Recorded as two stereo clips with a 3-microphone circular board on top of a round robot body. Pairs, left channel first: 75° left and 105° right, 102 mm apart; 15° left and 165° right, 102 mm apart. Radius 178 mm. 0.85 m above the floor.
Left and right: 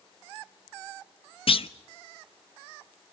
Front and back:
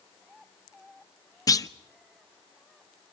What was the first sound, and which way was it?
A clunk, 65° left.